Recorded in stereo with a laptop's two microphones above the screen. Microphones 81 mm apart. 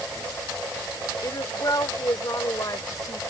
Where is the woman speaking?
50° left (ahead or behind).